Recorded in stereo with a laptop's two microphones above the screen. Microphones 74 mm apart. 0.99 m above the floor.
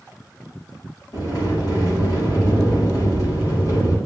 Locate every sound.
1.1 s a sliding door: 60° left (ahead or behind), 5.5 m